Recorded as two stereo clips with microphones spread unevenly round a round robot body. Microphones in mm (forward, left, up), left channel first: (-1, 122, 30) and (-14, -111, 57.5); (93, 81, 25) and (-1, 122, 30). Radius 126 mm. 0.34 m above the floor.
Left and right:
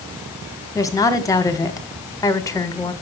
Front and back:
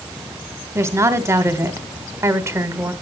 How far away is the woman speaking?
About 1.5 m.